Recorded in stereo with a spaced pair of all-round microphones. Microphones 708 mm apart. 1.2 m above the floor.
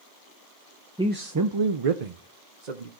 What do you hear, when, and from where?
1.0 s a man speaking: 5° right (ahead or behind), 0.6 m; by 2.9 s 75° right (ahead or behind), 1.2 m